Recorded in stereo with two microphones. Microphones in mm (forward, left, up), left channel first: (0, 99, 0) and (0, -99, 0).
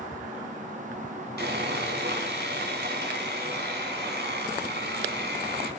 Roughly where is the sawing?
Right.